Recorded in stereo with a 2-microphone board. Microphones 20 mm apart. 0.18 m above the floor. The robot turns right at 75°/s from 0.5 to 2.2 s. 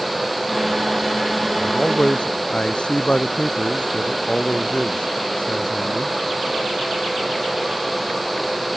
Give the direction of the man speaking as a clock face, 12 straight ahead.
10 o'clock.